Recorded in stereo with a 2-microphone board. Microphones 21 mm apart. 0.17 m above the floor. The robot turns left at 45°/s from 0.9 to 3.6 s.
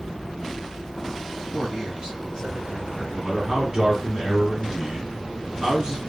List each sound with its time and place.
1.5 s a man speaking: 95° right, 1.6 m; by 3.0 s 165° right, 1.6 m
3.1 s a man speaking: 15° right (ahead or behind), 1.9 m; by 6.0 s 30° right (ahead or behind), 1.9 m